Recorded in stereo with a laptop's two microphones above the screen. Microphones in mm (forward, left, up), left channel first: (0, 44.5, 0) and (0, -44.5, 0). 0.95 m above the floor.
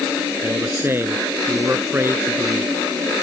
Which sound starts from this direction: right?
A man speaking, at 0.4 s.